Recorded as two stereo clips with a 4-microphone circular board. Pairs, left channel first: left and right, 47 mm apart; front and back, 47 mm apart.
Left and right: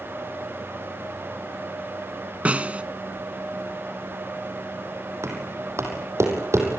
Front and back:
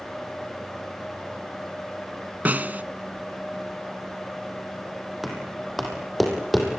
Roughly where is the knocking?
Right.